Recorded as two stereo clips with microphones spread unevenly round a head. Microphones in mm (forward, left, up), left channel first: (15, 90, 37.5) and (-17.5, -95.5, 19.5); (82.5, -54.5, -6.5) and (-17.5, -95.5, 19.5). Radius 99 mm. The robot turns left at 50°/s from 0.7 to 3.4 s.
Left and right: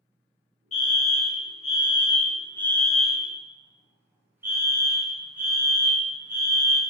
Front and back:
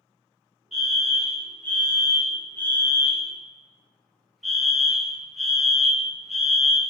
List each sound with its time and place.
0.7 s a fire alarm: 95° left, 1.1 m; by 6.8 s 40° right, 1.1 m